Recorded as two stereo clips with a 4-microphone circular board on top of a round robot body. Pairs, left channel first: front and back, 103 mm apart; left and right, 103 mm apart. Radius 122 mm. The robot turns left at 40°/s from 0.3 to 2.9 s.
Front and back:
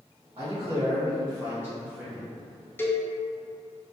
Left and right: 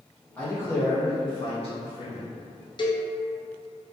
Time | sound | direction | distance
0.4 | a man speaking | 165° left | 1.5 m
2.8 | a cowbell | 65° left | 0.5 m